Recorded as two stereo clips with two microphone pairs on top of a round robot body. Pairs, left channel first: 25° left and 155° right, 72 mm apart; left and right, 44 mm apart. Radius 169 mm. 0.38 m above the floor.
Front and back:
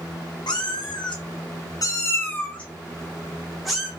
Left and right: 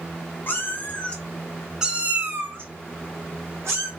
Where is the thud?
No thud in this recording.